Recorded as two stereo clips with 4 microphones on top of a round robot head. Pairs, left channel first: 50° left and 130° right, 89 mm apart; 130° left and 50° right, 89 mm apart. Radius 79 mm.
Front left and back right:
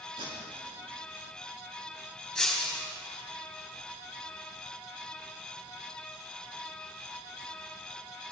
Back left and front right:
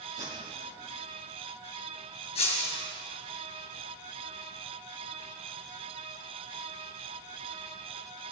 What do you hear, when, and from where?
0.2 s tape being pulled: 100° right, 6 m
2.4 s breaking glass: 135° left, 3.5 m